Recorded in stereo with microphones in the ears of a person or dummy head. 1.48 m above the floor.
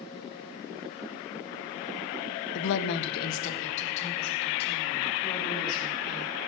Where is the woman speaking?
70° left (ahead or behind), 0.8 m; by 6.3 s 20° left (ahead or behind), 4 m.